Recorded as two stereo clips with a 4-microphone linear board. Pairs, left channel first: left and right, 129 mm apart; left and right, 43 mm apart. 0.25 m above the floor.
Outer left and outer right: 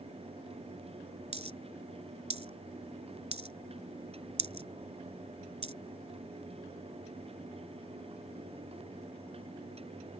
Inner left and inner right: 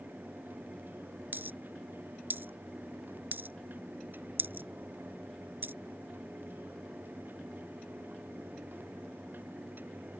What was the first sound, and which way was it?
A dropped coin, 60° right (ahead or behind).